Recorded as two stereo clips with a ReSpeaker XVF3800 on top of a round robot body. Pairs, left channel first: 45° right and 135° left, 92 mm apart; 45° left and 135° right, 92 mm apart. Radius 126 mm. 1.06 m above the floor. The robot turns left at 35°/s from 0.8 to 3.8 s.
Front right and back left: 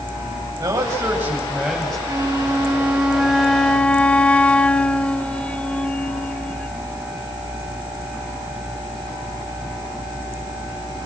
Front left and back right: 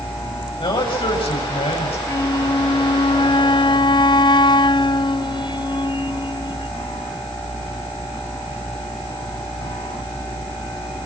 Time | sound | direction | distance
0.6 | a man speaking | 80° left | 8 m
2.1 | a flute | 90° left | 1.2 m